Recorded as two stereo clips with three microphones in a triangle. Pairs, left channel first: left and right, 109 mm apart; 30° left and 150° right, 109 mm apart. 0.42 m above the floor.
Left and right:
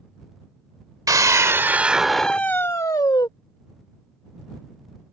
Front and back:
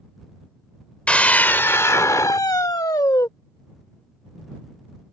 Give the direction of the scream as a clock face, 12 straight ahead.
2 o'clock.